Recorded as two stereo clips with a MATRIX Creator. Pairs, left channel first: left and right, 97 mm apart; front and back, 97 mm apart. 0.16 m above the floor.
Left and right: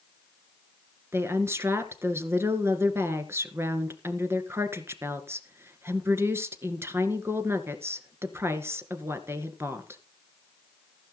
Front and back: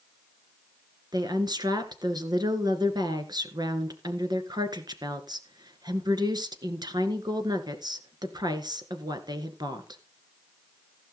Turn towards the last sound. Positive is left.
turn(degrees=-150)